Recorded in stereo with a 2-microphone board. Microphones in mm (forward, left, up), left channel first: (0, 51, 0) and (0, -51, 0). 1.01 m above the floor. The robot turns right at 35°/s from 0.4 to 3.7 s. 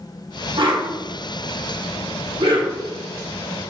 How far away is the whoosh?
About 1.4 m.